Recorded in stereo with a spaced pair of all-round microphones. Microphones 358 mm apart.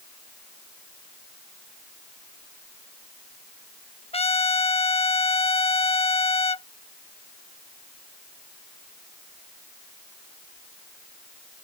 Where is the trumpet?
15° left (ahead or behind).